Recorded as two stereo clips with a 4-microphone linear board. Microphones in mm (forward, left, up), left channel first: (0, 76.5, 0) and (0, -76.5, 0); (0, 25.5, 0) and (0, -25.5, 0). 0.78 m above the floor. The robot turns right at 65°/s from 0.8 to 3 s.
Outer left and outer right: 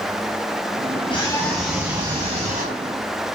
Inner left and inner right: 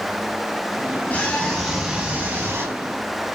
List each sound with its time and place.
1.1 s a scream: 145° left, 4.5 m; by 2.8 s 100° right, 4.5 m